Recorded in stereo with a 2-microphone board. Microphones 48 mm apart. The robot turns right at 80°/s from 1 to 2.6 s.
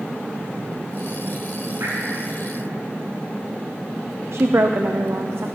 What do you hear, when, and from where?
1.8 s dripping: 70° right (ahead or behind), 6.5 m; by 1.9 s 60° right (ahead or behind), 6.5 m
4.3 s a woman speaking: 60° right (ahead or behind), 0.7 m